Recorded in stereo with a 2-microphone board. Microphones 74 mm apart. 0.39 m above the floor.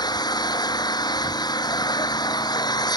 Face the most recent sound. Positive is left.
turn(degrees=85)